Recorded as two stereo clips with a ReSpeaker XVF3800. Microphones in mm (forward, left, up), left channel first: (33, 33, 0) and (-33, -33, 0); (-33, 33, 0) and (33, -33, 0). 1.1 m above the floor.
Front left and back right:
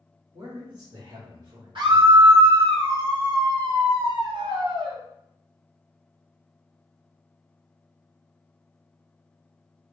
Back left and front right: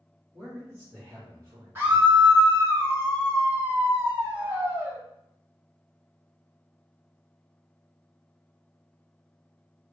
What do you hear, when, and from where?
0.3 s a man speaking: 110° right, 2.5 m; by 2.3 s 90° right, 1.5 m
1.8 s a scream: 110° right, 1.8 m